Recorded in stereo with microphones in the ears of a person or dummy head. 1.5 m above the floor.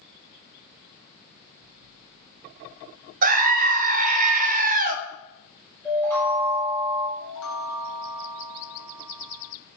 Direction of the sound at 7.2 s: 80° left.